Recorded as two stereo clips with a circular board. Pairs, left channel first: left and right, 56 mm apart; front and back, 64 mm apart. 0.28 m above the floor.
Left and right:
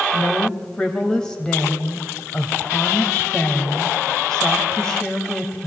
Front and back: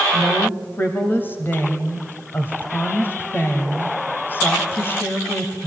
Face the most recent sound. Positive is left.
turn(degrees=25)